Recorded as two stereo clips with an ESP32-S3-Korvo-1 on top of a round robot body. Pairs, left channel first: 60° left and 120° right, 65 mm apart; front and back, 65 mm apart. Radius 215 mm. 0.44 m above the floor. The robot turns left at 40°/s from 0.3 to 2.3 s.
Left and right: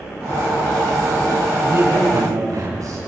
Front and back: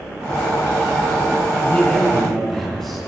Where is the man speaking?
60° right, 4.5 m; by 3.0 s 85° right, 4.5 m.